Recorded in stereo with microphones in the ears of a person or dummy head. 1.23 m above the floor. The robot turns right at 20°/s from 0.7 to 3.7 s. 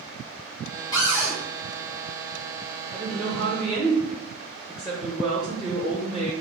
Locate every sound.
0.9 s a cupboard door: 20° left (ahead or behind), 1.1 m; by 1.4 s 10° left (ahead or behind), 1.1 m
2.9 s a woman speaking: 15° right (ahead or behind), 0.7 m; by 6.3 s centre (ahead or behind), 0.7 m